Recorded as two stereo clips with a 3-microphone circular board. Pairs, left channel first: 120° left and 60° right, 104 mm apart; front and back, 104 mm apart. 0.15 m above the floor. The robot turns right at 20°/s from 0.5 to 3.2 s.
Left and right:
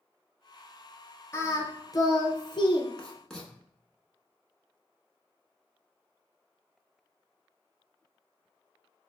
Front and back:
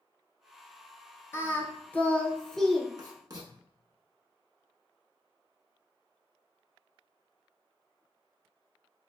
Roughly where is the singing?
Ahead left.